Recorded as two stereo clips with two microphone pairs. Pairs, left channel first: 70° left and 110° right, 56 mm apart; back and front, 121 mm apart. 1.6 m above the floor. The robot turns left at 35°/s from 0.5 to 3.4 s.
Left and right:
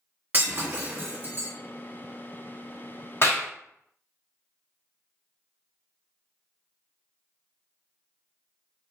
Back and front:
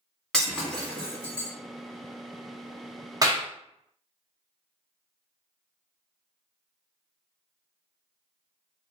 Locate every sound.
0.3 s breaking glass: 95° right, 1.1 m; by 1.5 s 130° right, 1.1 m
3.2 s a clap: 50° left, 0.6 m; by 3.5 s 45° left, 0.6 m